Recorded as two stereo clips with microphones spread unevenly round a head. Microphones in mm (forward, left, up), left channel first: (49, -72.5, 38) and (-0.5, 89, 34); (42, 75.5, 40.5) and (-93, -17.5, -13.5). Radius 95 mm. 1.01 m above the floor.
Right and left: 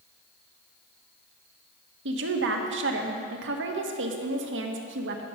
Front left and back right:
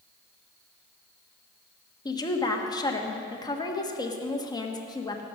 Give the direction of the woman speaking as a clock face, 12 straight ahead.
8 o'clock.